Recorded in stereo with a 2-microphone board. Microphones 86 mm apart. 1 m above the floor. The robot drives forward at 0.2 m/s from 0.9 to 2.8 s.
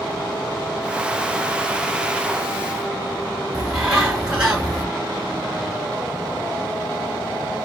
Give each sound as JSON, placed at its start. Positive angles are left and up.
{"t": 3.5, "sound": "a bird", "side_deg": -5, "distance_m": 2.0}